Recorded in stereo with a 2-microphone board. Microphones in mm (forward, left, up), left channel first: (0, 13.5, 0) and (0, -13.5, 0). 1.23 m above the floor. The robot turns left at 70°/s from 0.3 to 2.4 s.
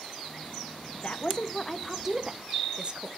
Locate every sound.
0.9 s a woman speaking: 60° left, 0.8 m; by 3.1 s 40° right, 0.8 m